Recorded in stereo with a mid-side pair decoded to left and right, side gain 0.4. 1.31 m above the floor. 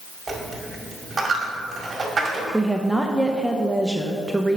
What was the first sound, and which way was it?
A dropped coin, 35° right.